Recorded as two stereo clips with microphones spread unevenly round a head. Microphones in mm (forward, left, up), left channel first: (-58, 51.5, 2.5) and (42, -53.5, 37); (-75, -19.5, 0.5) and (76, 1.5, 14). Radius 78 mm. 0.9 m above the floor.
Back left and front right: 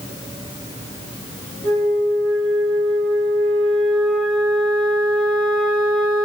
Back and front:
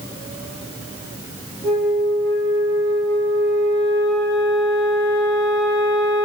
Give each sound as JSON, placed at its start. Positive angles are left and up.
{"t": 1.6, "sound": "a flute", "azimuth_deg": -105, "distance_m": 1.4}